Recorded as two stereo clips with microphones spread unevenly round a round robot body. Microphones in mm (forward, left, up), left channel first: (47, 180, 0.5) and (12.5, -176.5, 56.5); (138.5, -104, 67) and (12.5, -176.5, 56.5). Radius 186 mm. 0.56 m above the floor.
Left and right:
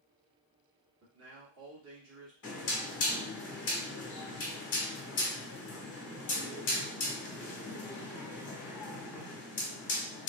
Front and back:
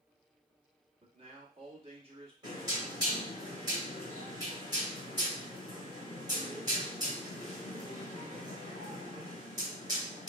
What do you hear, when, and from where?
1.0 s a man speaking: 140° right, 1.6 m
2.4 s knocking: 140° left, 1.9 m